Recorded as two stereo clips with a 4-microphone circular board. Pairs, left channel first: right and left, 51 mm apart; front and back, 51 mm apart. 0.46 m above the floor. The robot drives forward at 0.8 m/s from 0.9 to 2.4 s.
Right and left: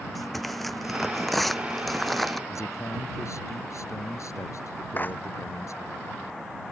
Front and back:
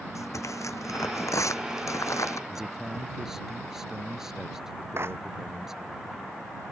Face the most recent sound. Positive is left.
turn(degrees=-140)